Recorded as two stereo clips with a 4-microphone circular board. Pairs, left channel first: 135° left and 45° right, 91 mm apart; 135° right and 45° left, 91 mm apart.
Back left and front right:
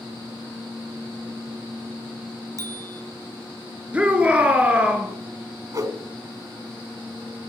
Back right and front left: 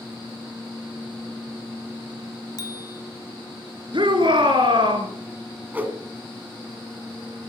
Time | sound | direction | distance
2.6 | a bicycle bell | 90° right | 2 m
3.9 | a shout | 30° left | 3.5 m
5.7 | a whoosh | 20° right | 2 m